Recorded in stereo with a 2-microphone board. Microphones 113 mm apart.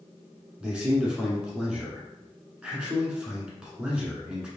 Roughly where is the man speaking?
Centre.